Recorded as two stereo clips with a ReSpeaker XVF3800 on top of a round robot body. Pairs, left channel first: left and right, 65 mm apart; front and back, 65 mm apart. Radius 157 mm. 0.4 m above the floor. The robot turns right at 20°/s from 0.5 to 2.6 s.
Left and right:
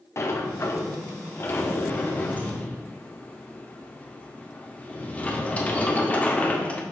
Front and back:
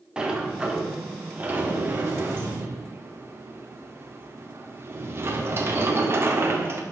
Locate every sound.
0.2 s a sliding door: 105° left, 1.9 m; by 6.8 s 150° left, 1.9 m